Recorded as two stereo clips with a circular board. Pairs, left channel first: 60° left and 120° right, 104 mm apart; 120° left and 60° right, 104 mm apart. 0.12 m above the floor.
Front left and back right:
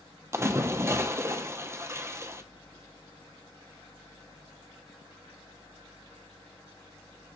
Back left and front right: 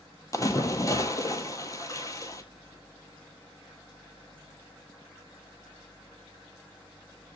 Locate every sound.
0.3 s a splash: 175° left, 0.7 m